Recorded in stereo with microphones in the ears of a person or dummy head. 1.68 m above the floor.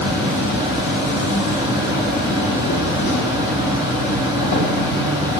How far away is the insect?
About 0.7 m.